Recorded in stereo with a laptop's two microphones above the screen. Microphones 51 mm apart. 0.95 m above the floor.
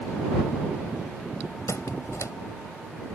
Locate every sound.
1.7 s a squeak: 80° left